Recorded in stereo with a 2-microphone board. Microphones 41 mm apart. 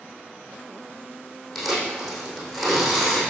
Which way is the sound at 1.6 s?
5° left (ahead or behind).